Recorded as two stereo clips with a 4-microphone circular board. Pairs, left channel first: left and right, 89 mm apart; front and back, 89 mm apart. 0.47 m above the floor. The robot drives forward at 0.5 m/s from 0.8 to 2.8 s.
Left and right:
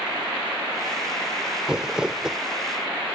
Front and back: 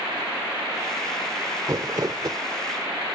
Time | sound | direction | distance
1.7 | crumpling | 165° right | ?